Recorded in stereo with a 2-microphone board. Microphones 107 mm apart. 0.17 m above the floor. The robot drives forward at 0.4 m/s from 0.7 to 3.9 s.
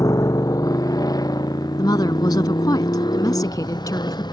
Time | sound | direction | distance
0.0 | a motorcycle | 30° left (ahead or behind) | ?
1.8 | a woman speaking | 40° left (ahead or behind) | ?